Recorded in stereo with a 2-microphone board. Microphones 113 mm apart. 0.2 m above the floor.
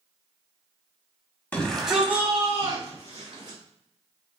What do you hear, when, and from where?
1.5 s a shout: 15° left (ahead or behind), 1.0 m; by 3.6 s 40° right (ahead or behind), 2.5 m